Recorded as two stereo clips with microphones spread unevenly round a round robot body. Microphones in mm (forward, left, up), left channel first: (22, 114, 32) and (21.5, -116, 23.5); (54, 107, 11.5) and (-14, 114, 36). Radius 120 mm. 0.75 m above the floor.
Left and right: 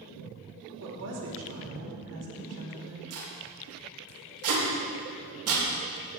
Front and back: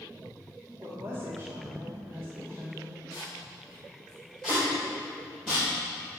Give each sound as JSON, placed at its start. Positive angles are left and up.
{"t": 0.8, "sound": "a woman speaking", "azimuth_deg": -105, "distance_m": 2.5}
{"t": 3.1, "sound": "tape being pulled", "azimuth_deg": -85, "distance_m": 3.5}